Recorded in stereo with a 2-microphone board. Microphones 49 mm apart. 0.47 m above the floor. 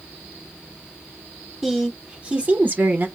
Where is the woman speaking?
10° right (ahead or behind), 1.3 m; by 3.1 s 40° right (ahead or behind), 1.4 m.